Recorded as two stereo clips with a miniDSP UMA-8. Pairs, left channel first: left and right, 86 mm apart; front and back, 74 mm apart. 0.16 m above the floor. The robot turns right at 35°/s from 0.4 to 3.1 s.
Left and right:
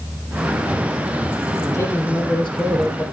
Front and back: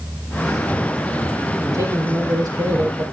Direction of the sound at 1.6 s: 150° left.